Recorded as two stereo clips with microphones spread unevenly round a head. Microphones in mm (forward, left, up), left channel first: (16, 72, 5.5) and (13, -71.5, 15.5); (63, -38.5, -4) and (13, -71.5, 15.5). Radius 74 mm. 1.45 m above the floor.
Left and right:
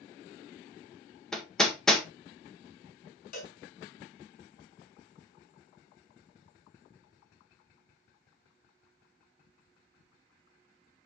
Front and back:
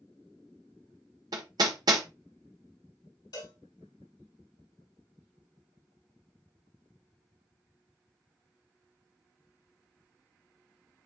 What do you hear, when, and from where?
1.3 s hammering: 175° left, 1.4 m
3.3 s a cowbell: 60° left, 3.5 m